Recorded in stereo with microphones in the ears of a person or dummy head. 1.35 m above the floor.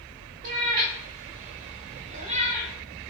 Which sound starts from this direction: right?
A cat meowing, at 0.4 s.